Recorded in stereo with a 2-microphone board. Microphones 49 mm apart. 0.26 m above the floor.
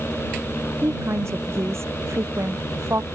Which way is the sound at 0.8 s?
70° right (ahead or behind).